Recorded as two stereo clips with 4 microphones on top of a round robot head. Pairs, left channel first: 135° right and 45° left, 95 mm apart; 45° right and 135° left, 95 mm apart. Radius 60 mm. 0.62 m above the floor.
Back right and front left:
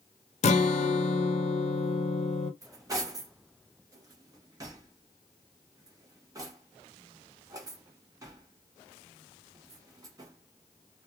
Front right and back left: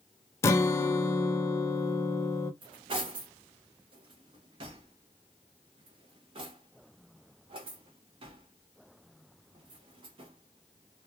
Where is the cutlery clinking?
100° left, 1.1 m.